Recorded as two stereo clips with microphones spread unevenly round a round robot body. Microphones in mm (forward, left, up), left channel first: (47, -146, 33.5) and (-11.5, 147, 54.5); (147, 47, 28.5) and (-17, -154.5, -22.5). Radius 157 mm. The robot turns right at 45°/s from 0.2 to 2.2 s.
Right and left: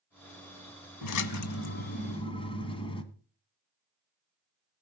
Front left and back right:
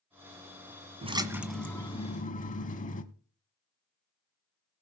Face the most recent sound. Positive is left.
turn(degrees=-5)